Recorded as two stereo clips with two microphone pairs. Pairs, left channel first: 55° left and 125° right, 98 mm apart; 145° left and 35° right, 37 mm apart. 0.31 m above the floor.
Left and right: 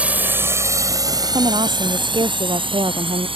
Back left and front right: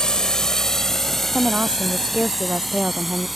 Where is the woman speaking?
90° right.